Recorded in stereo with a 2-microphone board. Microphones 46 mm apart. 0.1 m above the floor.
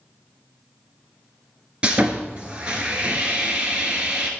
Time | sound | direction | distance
1.8 | sawing | 25° right (ahead or behind) | 1.4 m